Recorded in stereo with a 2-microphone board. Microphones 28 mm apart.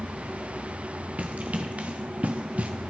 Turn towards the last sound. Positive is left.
turn(degrees=-50)  # may be behind; listen again after turning